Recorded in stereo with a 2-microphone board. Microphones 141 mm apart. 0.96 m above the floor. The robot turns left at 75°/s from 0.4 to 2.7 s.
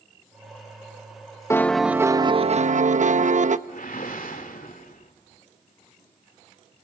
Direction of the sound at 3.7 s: 80° left.